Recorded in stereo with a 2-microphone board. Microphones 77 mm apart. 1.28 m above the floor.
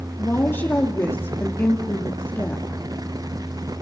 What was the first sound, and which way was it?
A woman speaking, 30° left (ahead or behind).